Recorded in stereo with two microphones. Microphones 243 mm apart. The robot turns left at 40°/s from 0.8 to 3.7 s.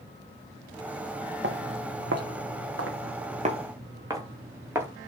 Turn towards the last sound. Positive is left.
turn(degrees=-10)  # may be behind; listen again after turning